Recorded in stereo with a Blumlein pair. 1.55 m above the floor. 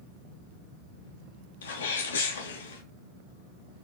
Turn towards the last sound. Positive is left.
turn(degrees=65)